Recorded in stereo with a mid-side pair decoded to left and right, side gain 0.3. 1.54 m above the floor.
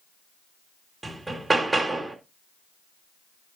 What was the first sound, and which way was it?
Hammering, 25° right.